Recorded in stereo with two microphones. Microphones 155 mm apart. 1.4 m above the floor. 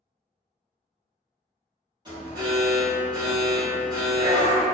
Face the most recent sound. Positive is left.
turn(degrees=-25)  # may be behind; listen again after turning